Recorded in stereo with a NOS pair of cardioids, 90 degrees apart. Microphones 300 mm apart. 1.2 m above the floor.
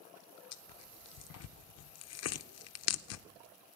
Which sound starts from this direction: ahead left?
Tearing paper, at 0.5 s.